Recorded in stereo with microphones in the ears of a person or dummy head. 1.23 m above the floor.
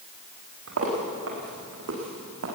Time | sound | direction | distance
0.7 | footsteps | 80° right | 7.5 m